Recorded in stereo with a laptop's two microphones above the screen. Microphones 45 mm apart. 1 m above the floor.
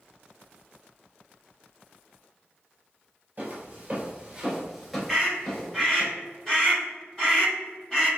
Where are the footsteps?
45° right (ahead or behind), 1.3 m; by 6.1 s 30° left (ahead or behind), 1.3 m.